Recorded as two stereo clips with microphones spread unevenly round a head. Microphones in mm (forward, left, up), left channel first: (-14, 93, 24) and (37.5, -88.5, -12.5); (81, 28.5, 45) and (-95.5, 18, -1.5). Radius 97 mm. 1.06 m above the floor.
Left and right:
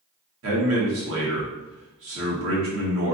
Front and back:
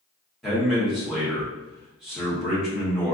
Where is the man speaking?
90° right, 1.6 m.